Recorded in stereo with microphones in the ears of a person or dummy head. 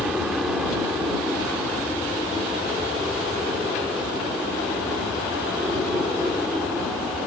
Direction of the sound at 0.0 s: 5° right (ahead or behind).